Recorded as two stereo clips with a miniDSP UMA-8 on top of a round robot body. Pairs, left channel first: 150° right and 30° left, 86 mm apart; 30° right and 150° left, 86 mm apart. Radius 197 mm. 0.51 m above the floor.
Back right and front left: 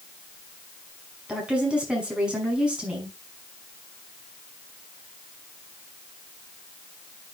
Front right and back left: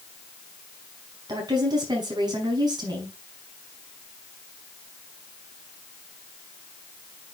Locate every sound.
1.3 s a woman speaking: 110° left, 5.5 m